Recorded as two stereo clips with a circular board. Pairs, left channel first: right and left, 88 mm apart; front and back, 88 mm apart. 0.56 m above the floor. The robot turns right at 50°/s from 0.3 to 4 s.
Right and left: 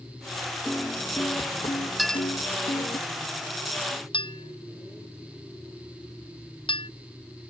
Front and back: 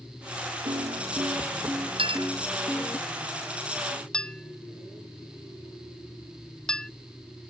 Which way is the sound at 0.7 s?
175° right.